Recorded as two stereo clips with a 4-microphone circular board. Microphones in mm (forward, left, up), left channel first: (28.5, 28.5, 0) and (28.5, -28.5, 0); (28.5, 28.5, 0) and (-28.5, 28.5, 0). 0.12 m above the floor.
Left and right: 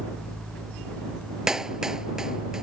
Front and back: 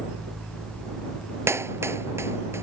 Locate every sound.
1.5 s a clap: 165° right